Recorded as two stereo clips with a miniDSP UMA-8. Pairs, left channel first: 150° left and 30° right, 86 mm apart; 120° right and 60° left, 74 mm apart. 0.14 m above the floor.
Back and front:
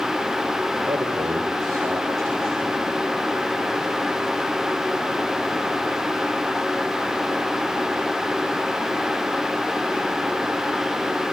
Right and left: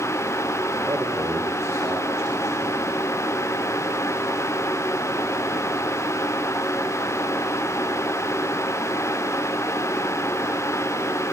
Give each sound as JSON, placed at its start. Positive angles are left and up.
{"t": 0.9, "sound": "a man speaking", "azimuth_deg": 15, "distance_m": 5.0}